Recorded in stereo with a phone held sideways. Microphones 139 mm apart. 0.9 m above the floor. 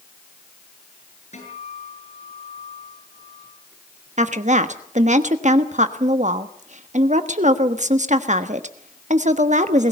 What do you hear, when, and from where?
1.3 s a guitar: 55° left (ahead or behind), 7.5 m
4.2 s a woman speaking: 60° right (ahead or behind), 1.3 m